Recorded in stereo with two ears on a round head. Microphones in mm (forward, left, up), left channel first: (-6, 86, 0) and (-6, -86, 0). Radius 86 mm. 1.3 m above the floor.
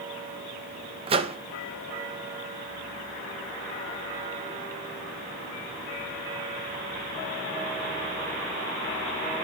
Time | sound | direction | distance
1.1 | a microwave | 30° right (ahead or behind) | 0.9 m